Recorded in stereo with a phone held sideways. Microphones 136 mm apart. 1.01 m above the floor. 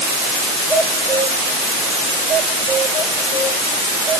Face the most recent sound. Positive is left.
No sound to turn to.